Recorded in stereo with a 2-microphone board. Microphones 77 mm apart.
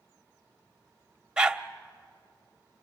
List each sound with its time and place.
1.4 s a dog barking: 10° right (ahead or behind), 0.7 m